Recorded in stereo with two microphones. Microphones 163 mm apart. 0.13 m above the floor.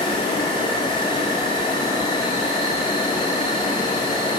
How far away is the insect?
About 5.5 m.